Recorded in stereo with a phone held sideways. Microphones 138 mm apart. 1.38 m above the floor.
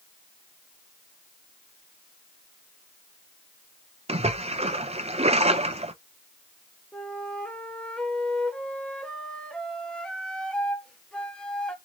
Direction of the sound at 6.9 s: 5° left (ahead or behind).